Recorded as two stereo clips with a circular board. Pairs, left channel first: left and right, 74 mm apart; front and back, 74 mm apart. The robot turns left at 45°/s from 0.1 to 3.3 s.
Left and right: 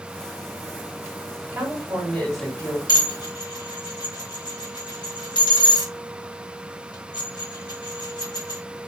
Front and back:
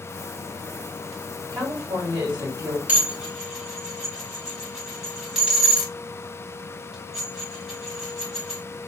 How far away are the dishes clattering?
About 1.9 m.